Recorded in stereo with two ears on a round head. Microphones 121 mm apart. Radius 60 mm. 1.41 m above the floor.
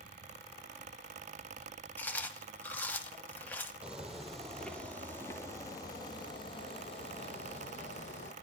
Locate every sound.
2.0 s chewing: 15° left (ahead or behind), 1.1 m
3.8 s footsteps: 5° right (ahead or behind), 1.9 m; by 8.3 s 55° left (ahead or behind), 2.5 m